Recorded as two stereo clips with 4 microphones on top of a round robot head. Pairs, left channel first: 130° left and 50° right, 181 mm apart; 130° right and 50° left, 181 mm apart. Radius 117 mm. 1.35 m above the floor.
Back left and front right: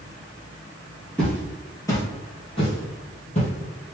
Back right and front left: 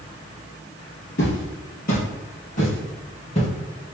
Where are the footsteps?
150° right, 1.8 m; by 3.5 s 175° left, 2.5 m.